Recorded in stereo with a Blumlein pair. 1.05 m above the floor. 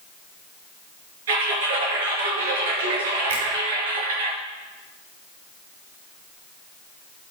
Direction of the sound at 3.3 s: 60° right.